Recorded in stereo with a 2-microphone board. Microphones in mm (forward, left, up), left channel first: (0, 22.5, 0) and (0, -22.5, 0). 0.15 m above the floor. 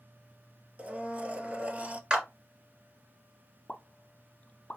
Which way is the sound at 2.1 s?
15° right (ahead or behind).